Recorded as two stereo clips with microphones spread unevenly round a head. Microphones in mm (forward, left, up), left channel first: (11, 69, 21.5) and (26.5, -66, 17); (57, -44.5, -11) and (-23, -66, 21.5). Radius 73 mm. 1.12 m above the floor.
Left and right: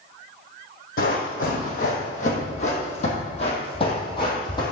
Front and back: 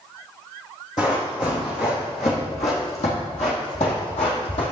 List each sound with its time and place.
1.0 s running footsteps: 85° left, 3 m; by 4.7 s 40° left, 2.5 m